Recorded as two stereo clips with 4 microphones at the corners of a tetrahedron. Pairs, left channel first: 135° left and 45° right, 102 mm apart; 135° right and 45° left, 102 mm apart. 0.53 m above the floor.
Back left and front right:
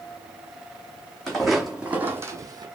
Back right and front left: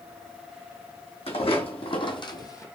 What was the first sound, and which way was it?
Footsteps, 140° right.